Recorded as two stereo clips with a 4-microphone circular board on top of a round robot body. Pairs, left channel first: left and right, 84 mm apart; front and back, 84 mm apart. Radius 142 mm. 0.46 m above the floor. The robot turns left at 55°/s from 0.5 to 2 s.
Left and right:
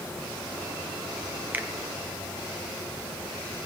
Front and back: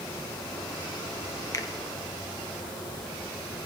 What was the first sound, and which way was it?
A finger snap, 30° right.